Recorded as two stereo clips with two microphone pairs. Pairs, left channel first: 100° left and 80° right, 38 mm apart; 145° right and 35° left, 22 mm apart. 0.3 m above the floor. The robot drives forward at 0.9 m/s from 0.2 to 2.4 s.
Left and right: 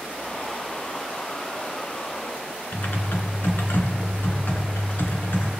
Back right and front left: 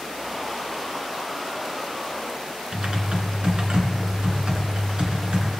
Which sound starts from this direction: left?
Typing on a keyboard, at 2.7 s.